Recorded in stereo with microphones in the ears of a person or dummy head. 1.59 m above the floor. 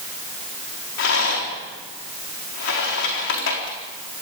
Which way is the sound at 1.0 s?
65° left (ahead or behind).